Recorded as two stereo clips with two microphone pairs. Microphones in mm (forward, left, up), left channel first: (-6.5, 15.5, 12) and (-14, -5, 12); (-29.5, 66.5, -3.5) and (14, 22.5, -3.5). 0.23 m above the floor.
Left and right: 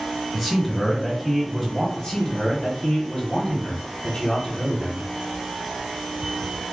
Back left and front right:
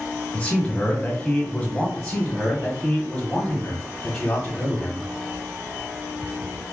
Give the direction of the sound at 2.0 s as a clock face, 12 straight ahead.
10 o'clock.